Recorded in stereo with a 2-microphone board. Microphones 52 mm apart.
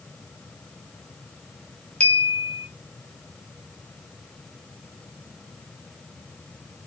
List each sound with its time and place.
2.0 s a clink: 25° left (ahead or behind), 0.6 m